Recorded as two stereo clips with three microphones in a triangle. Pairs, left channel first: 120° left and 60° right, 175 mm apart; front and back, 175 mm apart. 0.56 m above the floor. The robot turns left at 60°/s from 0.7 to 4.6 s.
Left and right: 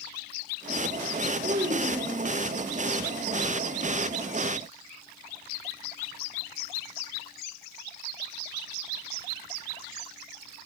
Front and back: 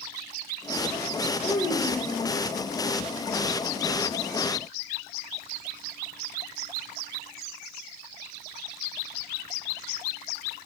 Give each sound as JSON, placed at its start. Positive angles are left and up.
{"t": 1.4, "sound": "a child speaking", "azimuth_deg": -50, "distance_m": 1.4}